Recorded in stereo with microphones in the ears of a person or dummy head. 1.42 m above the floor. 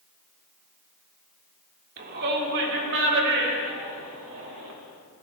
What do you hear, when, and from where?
2.0 s a shout: 50° right (ahead or behind), 4.5 m; by 4.7 s 75° right (ahead or behind), 7.5 m